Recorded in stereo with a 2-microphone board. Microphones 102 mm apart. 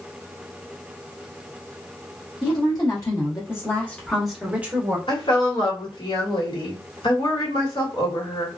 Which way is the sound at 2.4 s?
45° left (ahead or behind).